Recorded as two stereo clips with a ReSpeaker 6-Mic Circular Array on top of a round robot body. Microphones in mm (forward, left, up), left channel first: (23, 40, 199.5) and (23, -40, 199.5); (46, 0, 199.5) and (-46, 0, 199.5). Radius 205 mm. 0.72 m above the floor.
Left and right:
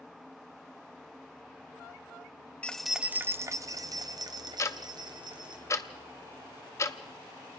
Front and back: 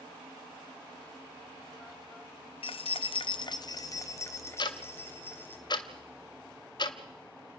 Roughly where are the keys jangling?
Ahead.